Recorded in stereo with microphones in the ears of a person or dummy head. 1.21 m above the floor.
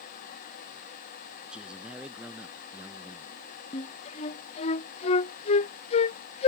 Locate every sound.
1.5 s a man speaking: 5° right (ahead or behind); by 3.4 s 10° right (ahead or behind)
3.7 s a flute: 40° left (ahead or behind)